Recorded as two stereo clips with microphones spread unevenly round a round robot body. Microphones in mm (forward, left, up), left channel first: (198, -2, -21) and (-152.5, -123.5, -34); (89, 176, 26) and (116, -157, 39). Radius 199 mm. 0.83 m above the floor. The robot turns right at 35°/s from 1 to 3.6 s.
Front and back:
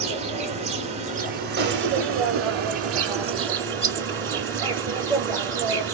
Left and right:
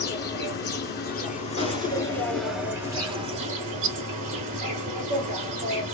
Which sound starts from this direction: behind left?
An insect, at 0.0 s.